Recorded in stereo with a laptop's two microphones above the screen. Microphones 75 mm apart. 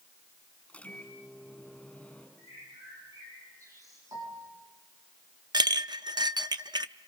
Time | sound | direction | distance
0.7 | a microwave | 15° left (ahead or behind) | 6 m
2.4 | a bird | 45° right (ahead or behind) | 9.5 m
4.1 | a piano | 65° right (ahead or behind) | 8.5 m
5.5 | a clink | 70° right (ahead or behind) | 0.5 m